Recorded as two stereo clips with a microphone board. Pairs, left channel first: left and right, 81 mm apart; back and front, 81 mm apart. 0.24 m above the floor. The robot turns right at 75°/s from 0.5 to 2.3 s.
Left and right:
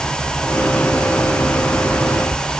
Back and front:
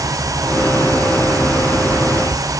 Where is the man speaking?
I don't hear a man speaking.